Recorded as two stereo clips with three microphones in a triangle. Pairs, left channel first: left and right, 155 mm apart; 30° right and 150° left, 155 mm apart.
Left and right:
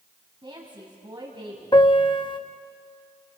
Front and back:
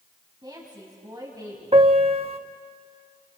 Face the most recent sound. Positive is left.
turn(degrees=130)